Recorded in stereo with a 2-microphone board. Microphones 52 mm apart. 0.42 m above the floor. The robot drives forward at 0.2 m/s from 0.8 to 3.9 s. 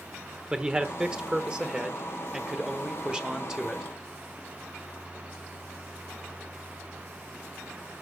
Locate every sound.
0.5 s a man speaking: 15° right (ahead or behind), 1.2 m